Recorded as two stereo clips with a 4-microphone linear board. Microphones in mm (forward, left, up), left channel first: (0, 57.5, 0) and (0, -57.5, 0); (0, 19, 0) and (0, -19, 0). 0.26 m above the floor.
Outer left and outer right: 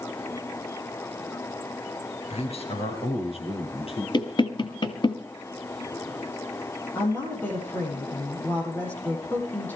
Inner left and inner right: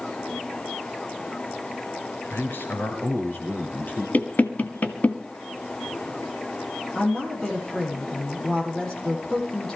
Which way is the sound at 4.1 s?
45° left (ahead or behind).